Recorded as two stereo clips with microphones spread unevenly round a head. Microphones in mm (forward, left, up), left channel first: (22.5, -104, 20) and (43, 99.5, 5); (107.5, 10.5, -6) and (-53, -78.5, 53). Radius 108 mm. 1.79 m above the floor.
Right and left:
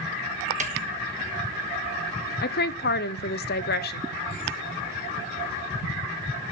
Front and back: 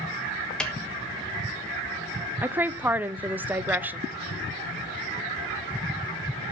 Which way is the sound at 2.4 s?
90° right.